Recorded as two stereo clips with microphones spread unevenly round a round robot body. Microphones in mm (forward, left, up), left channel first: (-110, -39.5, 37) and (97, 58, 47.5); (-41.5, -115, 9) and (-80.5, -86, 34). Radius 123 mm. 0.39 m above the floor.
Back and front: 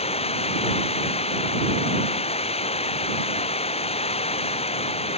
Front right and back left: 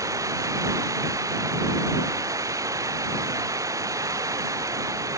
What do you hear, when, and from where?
0.0 s running water: 140° left